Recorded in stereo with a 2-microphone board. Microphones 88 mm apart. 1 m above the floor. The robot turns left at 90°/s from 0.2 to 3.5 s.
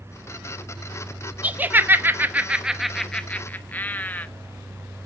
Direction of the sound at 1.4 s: 15° right (ahead or behind).